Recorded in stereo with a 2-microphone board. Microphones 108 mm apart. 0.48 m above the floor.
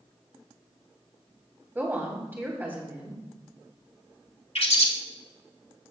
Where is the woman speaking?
20° right (ahead or behind), 2.5 m.